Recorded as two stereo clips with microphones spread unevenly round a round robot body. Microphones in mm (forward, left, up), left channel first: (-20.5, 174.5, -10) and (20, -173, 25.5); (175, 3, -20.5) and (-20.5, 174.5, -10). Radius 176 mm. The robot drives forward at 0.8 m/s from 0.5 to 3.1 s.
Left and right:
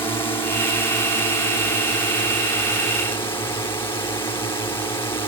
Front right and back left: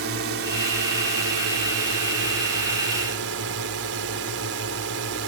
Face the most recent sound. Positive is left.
turn(degrees=175)